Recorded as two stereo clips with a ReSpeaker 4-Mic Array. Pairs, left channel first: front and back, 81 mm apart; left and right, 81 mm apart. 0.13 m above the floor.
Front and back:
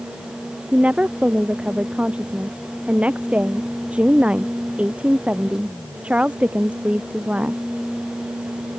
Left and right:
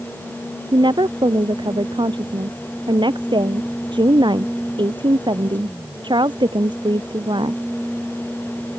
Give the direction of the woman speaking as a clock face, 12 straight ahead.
4 o'clock.